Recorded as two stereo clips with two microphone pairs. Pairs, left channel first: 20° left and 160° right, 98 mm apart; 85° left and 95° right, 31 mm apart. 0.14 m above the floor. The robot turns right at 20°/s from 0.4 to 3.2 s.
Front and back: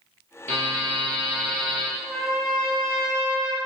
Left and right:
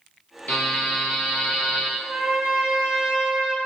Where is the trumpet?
70° right, 0.9 m; by 3.6 s 45° right, 0.9 m.